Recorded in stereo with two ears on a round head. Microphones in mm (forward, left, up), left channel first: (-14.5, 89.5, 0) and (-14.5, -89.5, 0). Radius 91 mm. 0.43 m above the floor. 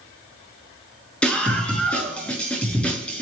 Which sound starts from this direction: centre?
A scream, at 1.2 s.